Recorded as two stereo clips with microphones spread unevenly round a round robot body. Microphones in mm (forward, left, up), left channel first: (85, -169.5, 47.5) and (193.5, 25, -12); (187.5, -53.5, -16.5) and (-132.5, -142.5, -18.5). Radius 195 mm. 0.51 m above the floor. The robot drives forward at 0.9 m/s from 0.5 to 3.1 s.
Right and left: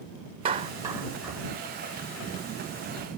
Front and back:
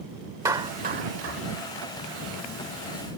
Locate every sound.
0.5 s a clap: 115° left; by 1.4 s 145° left